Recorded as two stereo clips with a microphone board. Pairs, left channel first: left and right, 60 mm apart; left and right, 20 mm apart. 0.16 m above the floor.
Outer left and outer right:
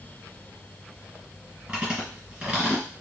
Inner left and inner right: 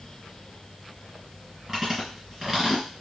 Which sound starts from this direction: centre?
Chewing, at 1.7 s.